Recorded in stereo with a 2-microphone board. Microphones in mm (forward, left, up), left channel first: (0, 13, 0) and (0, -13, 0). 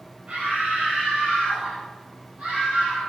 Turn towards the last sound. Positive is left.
turn(degrees=-35)  # may be behind; listen again after turning